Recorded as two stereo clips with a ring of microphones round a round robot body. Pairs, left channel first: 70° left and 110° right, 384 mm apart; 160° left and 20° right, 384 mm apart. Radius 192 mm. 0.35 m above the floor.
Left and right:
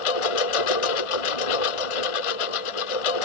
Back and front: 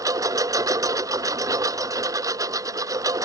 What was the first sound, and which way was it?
A lawn mower, 60° left.